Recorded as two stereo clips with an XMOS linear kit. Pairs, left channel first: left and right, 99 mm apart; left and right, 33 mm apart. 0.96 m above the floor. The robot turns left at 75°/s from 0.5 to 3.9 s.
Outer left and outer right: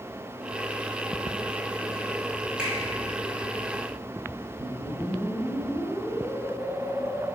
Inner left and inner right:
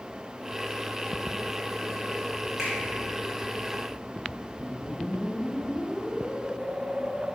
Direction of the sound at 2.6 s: 10° right (ahead or behind).